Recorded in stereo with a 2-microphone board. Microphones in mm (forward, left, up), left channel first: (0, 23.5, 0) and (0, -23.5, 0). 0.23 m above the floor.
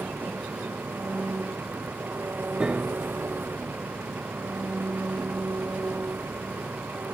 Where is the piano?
20° right (ahead or behind).